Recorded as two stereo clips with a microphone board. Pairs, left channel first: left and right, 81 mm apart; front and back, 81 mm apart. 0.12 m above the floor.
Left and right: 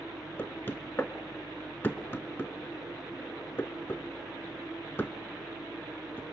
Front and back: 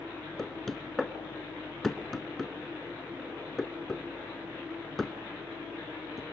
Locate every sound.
0.4 s knocking: 80° left, 0.9 m